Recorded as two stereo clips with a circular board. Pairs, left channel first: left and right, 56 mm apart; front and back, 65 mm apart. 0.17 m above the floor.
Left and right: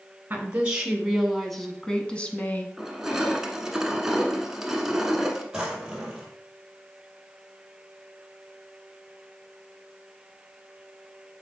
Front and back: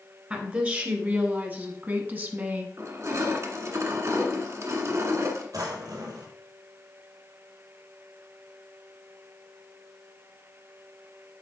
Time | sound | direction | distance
0.3 | a woman speaking | 130° right | 1.2 m
2.8 | crushing | 170° right | 1.2 m
5.5 | a drawer | 165° right | 1.9 m